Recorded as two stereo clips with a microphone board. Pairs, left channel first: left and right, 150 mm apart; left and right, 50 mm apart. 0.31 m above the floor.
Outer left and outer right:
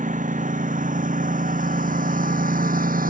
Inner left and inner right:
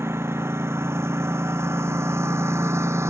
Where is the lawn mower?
60° right (ahead or behind); by 3.1 s 70° right (ahead or behind).